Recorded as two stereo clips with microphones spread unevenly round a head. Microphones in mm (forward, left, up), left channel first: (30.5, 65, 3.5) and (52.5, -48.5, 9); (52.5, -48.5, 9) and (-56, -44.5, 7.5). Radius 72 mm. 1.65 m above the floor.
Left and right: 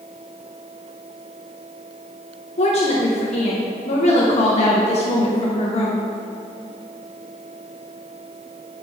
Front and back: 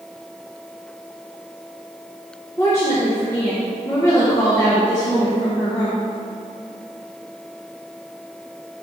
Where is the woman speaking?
70° left, 1.4 m.